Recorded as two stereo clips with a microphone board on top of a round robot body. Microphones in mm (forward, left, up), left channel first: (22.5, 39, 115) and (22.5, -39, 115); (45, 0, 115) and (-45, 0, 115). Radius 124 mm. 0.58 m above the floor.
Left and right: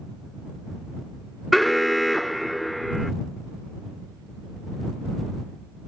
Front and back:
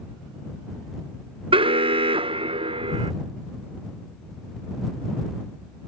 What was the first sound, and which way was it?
An alarm, straight behind.